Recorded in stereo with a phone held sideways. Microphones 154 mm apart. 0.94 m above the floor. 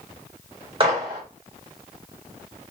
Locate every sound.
0.8 s a gunshot: 35° right (ahead or behind), 2 m